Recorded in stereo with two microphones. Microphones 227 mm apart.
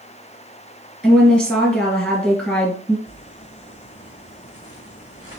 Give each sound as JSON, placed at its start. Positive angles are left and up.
{"t": 1.0, "sound": "a woman speaking", "side_deg": 5, "distance_m": 2.5}
{"t": 3.1, "sound": "crumpling", "side_deg": 55, "distance_m": 2.5}